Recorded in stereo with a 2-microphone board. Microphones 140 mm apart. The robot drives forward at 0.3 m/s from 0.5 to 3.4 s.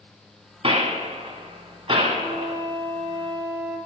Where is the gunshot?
45° right (ahead or behind), 1.7 m; by 2.6 s 35° right (ahead or behind), 1.9 m.